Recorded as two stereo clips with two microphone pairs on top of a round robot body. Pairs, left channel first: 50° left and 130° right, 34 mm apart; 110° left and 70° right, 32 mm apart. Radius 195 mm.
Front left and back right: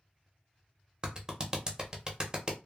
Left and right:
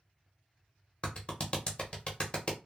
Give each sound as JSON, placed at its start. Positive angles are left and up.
{"t": 1.0, "sound": "a clap", "azimuth_deg": 165, "distance_m": 0.9}